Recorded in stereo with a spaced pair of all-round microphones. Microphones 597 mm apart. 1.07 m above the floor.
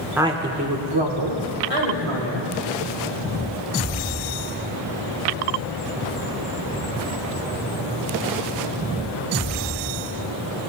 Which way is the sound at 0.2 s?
5° right (ahead or behind).